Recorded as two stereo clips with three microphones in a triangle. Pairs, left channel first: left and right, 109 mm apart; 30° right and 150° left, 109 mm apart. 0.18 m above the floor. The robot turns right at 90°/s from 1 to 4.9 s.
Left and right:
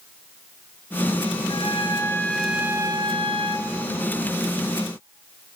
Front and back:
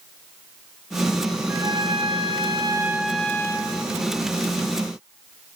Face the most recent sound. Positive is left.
turn(degrees=40)